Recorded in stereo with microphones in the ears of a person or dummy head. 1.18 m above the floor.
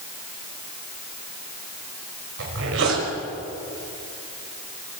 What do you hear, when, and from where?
2.4 s a zipper: 80° right, 5 m